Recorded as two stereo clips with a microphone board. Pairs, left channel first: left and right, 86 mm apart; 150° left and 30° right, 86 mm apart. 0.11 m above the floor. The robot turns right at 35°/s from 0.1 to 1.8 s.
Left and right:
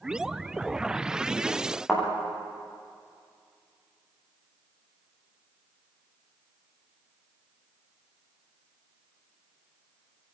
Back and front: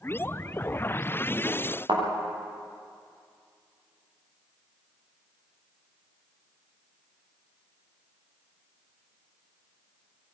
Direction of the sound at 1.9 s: 5° right.